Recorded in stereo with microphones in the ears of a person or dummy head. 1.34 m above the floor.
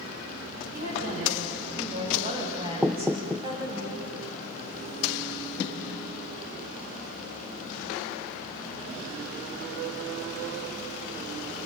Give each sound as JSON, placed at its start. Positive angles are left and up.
{"t": 0.7, "sound": "a woman speaking", "side_deg": -55, "distance_m": 7.0}
{"t": 2.8, "sound": "knocking", "side_deg": -10, "distance_m": 0.6}